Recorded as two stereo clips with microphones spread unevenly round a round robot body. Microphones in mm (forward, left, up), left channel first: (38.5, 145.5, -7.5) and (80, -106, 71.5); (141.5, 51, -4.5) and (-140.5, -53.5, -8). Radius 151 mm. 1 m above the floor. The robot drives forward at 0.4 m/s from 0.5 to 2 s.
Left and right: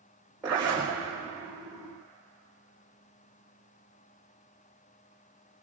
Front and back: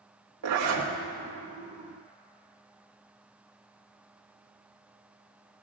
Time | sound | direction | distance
0.4 | a zipper | 165° right | 3.5 m